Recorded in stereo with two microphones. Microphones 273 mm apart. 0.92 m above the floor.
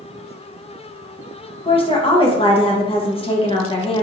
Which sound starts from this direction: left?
A woman speaking, at 1.6 s.